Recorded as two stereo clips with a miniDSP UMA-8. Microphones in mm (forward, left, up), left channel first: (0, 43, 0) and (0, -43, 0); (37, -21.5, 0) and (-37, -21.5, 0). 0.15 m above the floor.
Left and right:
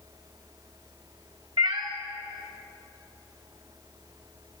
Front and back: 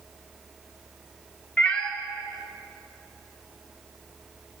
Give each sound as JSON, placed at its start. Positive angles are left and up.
{"t": 1.6, "sound": "a cat meowing", "azimuth_deg": -75, "distance_m": 1.3}